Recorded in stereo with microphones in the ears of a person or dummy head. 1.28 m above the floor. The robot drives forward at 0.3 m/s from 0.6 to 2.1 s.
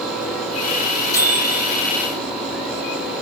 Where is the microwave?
30° left (ahead or behind), 2.5 m.